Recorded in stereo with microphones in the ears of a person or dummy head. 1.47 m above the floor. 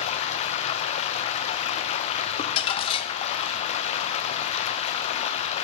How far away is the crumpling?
About 1.0 m.